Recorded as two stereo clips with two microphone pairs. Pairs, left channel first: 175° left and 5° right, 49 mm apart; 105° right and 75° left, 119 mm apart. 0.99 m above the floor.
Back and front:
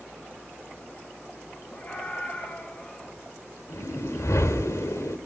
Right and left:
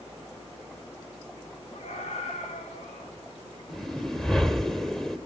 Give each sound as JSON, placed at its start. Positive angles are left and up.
{"t": 1.7, "sound": "a scream", "azimuth_deg": -130, "distance_m": 8.0}
{"t": 3.7, "sound": "a whoosh", "azimuth_deg": 165, "distance_m": 1.9}